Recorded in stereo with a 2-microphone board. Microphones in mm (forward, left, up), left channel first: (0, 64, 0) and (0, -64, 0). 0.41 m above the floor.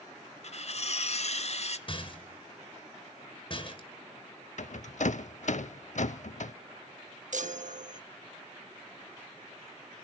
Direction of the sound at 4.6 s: 70° left (ahead or behind).